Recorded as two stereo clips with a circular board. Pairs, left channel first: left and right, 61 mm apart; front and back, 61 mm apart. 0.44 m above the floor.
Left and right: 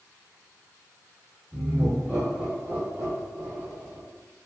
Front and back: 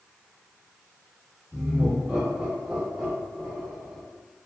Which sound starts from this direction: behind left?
Laughter, at 1.5 s.